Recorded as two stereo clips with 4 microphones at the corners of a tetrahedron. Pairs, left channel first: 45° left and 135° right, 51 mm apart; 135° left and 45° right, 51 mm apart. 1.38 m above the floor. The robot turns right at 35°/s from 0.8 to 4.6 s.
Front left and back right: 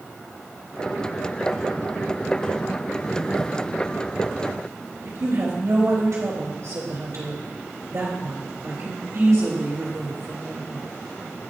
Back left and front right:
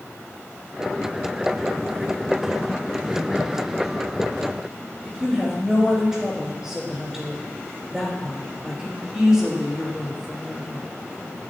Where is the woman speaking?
130° right, 3.5 m.